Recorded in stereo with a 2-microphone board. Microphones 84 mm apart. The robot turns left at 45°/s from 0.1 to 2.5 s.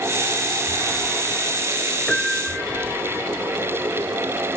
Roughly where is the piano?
Centre.